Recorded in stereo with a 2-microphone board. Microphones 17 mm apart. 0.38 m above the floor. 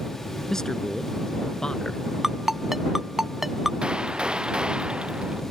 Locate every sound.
0.5 s a man speaking: 30° left (ahead or behind); by 2.0 s 45° left (ahead or behind)
2.2 s a ringtone: 25° right (ahead or behind)
3.8 s a gunshot: 80° right